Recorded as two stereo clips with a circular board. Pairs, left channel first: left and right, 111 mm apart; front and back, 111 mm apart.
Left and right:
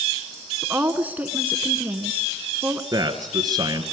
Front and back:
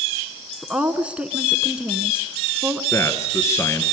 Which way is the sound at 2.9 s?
55° right.